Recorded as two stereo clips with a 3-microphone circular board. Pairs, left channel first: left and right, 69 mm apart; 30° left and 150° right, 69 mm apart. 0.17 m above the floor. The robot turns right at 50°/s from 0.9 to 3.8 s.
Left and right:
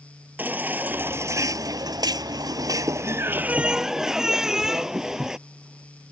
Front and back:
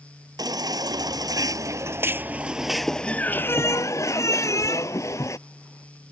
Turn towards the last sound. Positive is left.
turn(degrees=-10)